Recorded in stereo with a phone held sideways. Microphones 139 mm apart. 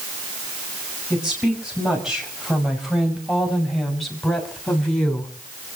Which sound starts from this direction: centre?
A woman speaking, at 1.1 s.